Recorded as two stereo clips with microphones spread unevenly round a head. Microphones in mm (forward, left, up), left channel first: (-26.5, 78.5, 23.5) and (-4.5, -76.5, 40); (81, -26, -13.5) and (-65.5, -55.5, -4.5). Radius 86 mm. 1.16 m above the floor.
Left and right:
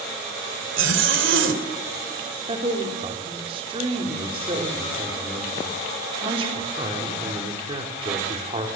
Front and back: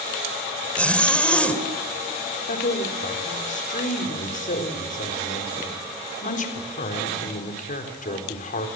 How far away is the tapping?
No tapping in this recording.